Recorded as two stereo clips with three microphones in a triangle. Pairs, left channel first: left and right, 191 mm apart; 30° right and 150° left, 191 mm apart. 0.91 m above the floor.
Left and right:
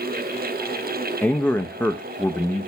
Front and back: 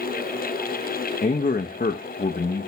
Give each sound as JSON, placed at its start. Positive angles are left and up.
{"t": 1.2, "sound": "a man speaking", "azimuth_deg": 5, "distance_m": 0.6}